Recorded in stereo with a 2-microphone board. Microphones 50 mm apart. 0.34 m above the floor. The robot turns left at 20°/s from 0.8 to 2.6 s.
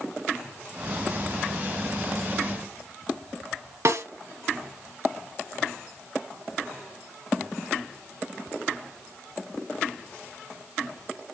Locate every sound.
3.9 s a snare drum: 65° right (ahead or behind), 1.8 m